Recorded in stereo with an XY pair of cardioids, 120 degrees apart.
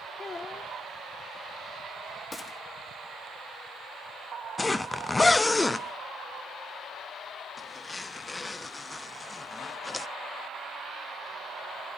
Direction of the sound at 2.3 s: 15° left.